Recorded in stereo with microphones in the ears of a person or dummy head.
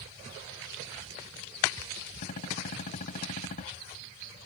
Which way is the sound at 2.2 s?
45° left (ahead or behind).